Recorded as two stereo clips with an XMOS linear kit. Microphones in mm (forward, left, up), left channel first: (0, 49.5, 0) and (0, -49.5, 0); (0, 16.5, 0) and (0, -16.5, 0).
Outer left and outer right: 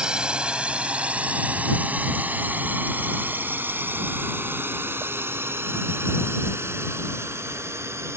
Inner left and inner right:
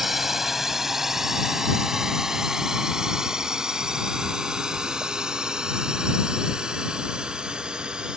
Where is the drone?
10° right (ahead or behind); by 8.2 s 30° right (ahead or behind).